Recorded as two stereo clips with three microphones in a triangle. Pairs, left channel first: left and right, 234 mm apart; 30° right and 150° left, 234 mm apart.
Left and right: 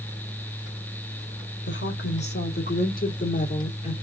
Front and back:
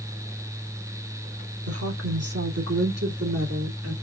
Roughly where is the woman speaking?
Behind left.